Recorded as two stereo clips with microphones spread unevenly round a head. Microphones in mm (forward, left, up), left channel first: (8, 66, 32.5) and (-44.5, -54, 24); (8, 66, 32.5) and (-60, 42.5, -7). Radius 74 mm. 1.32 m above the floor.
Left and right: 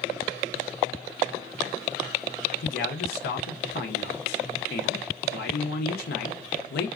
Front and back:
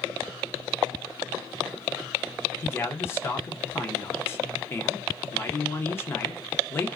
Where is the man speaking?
75° left, 0.7 m.